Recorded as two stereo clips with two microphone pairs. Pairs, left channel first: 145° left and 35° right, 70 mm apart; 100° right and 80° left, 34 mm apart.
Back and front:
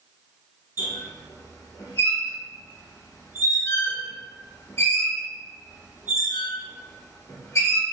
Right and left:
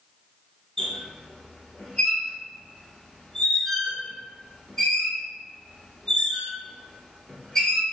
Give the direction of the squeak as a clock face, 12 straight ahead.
6 o'clock.